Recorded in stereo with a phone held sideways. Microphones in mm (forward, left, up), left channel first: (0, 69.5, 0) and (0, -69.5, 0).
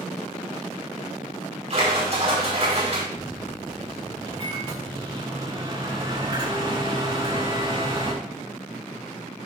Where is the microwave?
40° right (ahead or behind), 5 m.